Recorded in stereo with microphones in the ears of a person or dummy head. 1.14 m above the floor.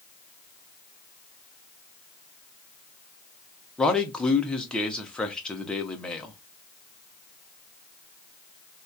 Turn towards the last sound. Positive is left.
turn(degrees=5)  # may be behind; listen again after turning